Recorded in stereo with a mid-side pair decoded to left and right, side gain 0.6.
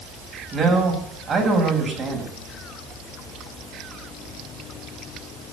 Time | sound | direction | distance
0.5 | a man speaking | 30° right | 6.5 m